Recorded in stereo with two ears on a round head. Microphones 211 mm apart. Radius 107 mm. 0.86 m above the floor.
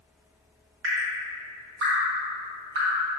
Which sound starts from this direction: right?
Dripping, at 0.8 s.